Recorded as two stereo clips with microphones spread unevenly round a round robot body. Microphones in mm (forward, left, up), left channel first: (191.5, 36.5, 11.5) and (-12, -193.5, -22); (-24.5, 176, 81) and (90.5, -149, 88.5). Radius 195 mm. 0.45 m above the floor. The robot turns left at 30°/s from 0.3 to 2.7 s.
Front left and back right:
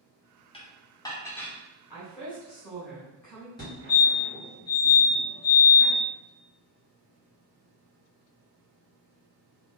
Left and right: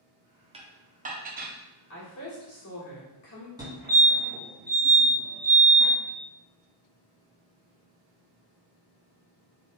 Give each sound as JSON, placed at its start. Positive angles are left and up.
{"t": 0.5, "sound": "dishes clattering", "azimuth_deg": -15, "distance_m": 0.6}
{"t": 1.9, "sound": "a woman speaking", "azimuth_deg": 155, "distance_m": 1.8}
{"t": 3.6, "sound": "a fire alarm", "azimuth_deg": -15, "distance_m": 1.9}